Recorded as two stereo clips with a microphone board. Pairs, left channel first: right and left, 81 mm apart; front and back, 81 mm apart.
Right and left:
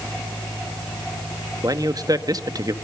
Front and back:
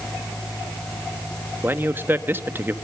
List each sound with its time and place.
1.6 s a man speaking: 120° left, 1.4 m